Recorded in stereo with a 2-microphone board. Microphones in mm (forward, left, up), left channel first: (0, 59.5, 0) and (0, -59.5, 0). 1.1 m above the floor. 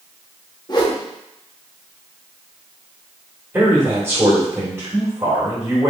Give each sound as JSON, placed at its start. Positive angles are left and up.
{"t": 0.7, "sound": "a whoosh", "side_deg": 35, "distance_m": 1.0}
{"t": 3.5, "sound": "a man speaking", "side_deg": -20, "distance_m": 2.0}